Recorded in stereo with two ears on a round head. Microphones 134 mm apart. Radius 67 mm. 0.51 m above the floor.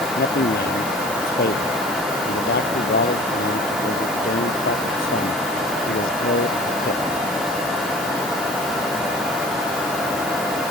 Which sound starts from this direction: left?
A man speaking, at 0.2 s.